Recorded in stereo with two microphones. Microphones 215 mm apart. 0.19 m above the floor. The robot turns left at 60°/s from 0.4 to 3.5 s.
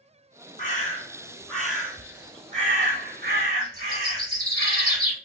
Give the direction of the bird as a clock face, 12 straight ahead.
10 o'clock.